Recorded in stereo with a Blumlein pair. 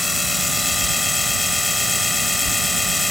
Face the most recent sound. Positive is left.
turn(degrees=5)